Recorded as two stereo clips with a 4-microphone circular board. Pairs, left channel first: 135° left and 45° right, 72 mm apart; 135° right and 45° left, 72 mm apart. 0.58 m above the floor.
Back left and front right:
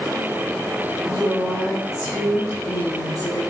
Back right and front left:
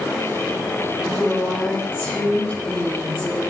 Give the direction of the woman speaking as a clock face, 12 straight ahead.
7 o'clock.